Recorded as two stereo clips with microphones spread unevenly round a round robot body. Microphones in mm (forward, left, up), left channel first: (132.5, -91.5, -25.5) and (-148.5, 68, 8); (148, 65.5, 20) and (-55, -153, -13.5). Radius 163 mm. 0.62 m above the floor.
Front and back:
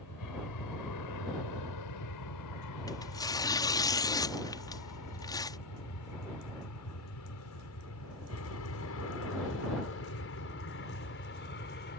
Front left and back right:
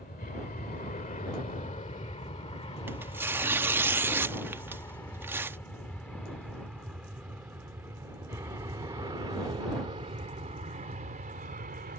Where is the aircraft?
10° right; by 12.0 s 80° right.